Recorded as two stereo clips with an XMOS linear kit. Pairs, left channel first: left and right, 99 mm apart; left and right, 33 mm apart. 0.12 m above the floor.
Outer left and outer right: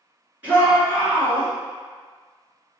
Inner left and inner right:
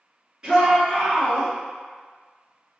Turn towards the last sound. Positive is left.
turn(degrees=-20)  # may be behind; listen again after turning